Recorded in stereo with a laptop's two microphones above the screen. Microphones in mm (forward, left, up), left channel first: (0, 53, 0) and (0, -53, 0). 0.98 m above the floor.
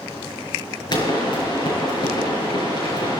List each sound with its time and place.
0.9 s a pop: 45° left (ahead or behind), 5.5 m